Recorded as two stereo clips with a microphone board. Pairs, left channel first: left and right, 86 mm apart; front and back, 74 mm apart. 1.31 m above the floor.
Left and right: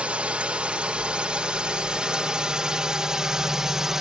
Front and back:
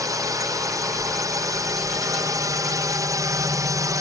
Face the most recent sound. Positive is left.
turn(degrees=-175)